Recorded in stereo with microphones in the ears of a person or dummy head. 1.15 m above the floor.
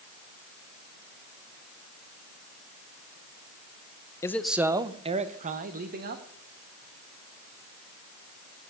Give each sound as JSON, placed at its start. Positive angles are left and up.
{"t": 4.2, "sound": "a man speaking", "side_deg": 20, "distance_m": 0.6}